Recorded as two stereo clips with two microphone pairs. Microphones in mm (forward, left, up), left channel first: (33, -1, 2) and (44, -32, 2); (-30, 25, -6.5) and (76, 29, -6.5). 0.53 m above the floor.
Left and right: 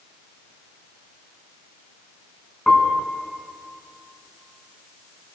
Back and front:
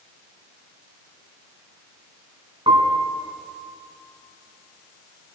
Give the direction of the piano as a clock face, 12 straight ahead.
11 o'clock.